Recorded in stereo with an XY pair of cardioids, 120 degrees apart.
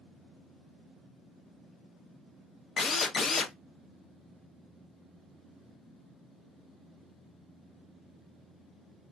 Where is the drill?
40° left, 0.5 m.